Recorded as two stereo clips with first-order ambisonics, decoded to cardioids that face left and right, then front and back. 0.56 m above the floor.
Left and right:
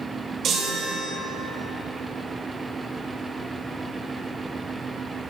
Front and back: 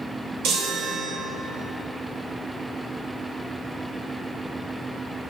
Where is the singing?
I don't hear singing.